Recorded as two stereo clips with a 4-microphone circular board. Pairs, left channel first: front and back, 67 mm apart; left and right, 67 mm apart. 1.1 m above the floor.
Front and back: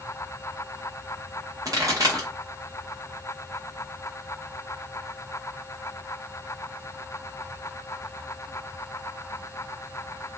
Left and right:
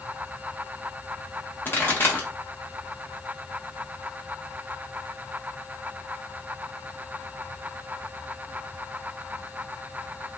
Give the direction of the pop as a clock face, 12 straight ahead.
7 o'clock.